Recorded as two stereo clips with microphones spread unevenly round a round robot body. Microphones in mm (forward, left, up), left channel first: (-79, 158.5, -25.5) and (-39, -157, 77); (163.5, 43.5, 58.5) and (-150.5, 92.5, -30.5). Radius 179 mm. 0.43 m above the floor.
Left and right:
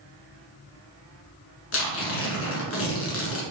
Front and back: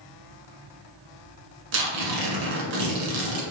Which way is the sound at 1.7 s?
150° left.